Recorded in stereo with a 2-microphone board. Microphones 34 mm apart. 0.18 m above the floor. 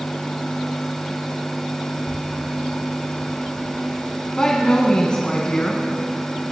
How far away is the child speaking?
About 4 m.